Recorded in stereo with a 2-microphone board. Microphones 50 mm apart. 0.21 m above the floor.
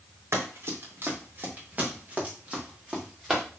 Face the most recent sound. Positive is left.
turn(degrees=-15)  # may be behind; listen again after turning